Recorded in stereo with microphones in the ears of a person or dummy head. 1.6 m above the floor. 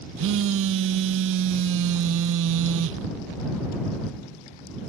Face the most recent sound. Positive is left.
turn(degrees=-65)  # may be behind; listen again after turning